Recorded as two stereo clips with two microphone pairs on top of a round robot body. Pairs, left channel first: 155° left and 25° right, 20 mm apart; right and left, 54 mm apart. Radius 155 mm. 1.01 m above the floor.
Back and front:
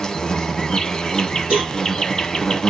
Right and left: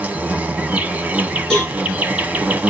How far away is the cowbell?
About 1.3 m.